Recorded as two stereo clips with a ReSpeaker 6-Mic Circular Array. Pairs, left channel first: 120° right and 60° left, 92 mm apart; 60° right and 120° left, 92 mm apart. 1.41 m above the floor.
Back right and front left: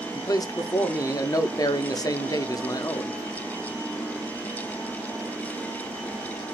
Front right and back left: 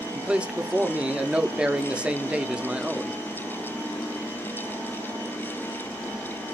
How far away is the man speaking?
About 0.6 m.